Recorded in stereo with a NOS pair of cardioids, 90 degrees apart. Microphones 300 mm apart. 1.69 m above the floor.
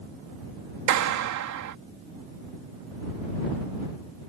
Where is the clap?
70° right.